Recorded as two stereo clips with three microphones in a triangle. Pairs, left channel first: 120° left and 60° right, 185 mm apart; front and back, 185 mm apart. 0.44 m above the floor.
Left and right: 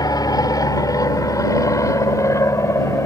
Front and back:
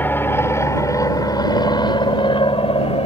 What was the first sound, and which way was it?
An aircraft, 70° left.